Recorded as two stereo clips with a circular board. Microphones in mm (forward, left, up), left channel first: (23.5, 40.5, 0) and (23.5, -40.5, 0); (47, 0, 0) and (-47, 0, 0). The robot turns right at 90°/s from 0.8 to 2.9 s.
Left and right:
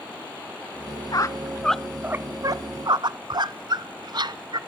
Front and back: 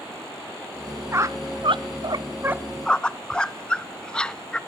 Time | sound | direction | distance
1.1 | a squeak | 120° left | 0.6 m